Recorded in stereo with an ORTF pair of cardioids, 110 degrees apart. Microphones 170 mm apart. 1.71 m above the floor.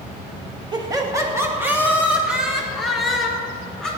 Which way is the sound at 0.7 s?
25° right.